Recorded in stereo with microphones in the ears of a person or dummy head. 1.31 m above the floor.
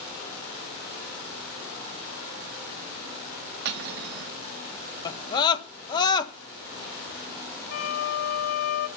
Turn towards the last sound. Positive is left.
turn(degrees=70)  # may be behind; listen again after turning